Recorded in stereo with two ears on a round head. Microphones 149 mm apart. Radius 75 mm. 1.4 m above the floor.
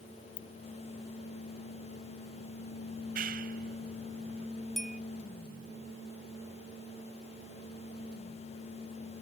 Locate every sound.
0.4 s a ringtone: 40° left (ahead or behind)
2.9 s a clap: 55° right (ahead or behind)
4.8 s a bell: centre (ahead or behind)